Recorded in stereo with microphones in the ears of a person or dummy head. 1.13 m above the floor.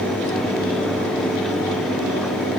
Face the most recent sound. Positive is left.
No sound to turn to.